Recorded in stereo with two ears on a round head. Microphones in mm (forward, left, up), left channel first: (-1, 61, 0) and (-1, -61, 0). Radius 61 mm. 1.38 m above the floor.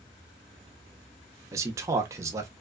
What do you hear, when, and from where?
1.5 s a man speaking: 25° right (ahead or behind), 0.8 m